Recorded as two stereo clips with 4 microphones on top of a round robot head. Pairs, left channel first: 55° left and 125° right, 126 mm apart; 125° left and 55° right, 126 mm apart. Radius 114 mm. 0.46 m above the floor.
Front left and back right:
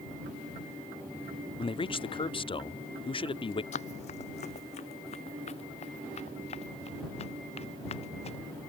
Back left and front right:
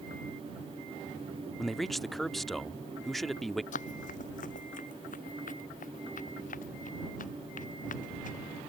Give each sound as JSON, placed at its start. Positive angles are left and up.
{"t": 1.6, "sound": "a man speaking", "azimuth_deg": 35}
{"t": 3.7, "sound": "running footsteps", "azimuth_deg": 95}